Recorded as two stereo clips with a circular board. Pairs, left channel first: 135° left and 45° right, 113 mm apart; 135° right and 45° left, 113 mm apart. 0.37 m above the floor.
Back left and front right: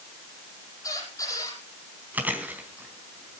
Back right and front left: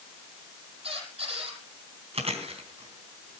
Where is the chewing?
30° left, 3 m.